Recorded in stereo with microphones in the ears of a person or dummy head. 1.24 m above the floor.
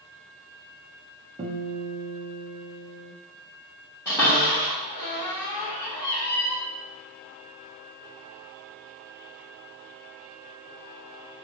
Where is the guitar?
30° right (ahead or behind), 0.6 m.